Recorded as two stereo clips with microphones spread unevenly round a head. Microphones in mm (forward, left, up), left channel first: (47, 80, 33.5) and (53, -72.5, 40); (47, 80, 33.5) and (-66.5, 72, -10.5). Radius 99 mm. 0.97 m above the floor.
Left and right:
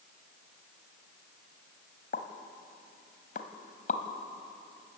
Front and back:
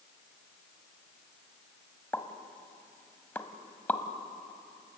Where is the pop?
60° left, 1.4 m.